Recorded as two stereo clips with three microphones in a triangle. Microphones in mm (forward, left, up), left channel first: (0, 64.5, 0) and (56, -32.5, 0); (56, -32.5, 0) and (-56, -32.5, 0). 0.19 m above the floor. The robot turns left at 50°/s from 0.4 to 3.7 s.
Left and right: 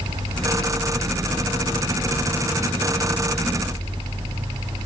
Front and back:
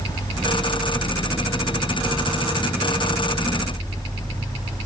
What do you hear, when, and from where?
Only background noise.